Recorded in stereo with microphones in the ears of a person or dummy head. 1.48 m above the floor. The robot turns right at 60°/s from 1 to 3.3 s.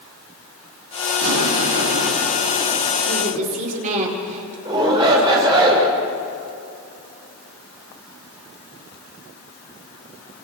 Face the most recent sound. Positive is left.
turn(degrees=-25)  # may be behind; listen again after turning